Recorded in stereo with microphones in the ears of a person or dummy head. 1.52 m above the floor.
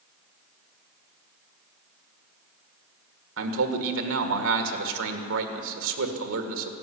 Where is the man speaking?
80° right, 1.7 m.